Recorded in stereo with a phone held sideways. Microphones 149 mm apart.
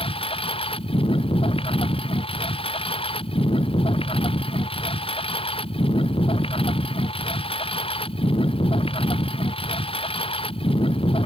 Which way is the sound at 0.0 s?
40° left (ahead or behind).